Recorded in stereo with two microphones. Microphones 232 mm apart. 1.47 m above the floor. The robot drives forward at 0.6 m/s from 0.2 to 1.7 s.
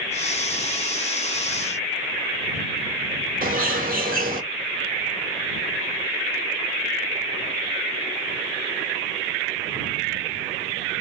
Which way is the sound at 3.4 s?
40° right (ahead or behind).